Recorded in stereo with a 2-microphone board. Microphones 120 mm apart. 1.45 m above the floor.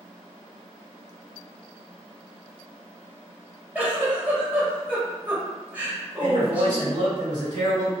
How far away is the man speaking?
About 1.7 m.